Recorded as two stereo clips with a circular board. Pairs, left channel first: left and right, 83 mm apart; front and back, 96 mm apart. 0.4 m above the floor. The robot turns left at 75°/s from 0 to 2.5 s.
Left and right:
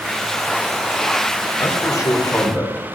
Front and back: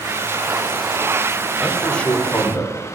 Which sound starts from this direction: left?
A man speaking, at 1.6 s.